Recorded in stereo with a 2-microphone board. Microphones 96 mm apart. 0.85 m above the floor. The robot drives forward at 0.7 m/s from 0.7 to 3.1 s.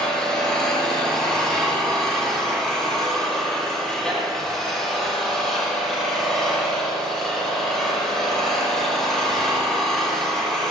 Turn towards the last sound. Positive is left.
turn(degrees=5)  # may be behind; listen again after turning